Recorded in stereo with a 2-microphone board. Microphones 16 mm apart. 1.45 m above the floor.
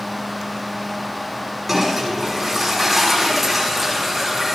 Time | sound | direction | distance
1.7 | a toilet flushing | 10° right (ahead or behind) | 5 m